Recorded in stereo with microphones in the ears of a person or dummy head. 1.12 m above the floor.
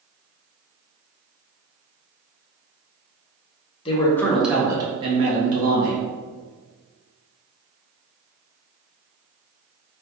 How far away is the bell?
No bell in this recording.